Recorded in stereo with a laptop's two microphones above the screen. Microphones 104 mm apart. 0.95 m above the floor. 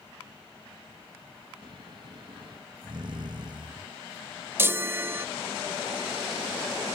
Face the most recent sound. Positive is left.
turn(degrees=-25)  # may be behind; listen again after turning